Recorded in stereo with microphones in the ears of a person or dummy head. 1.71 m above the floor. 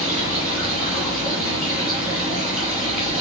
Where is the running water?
10° right (ahead or behind), 5.5 m.